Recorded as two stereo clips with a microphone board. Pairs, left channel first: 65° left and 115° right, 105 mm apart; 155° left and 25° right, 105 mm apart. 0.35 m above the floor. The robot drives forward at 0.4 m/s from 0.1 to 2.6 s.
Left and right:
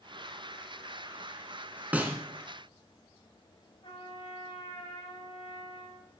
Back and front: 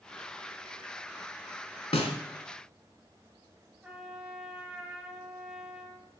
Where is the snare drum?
175° left, 0.9 m.